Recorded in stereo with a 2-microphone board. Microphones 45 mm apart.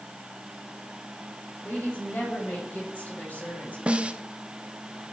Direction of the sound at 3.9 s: 25° right (ahead or behind).